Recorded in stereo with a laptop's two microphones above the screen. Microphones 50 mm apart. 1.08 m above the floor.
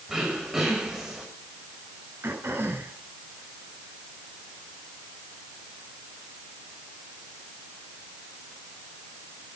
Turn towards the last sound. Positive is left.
turn(degrees=-50)  # may be behind; listen again after turning